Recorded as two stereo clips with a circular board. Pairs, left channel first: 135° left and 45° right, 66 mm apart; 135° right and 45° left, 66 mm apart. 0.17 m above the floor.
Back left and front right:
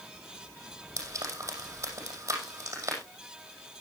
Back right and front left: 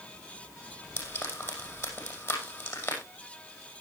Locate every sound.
1.0 s frying: 85° right, 6 m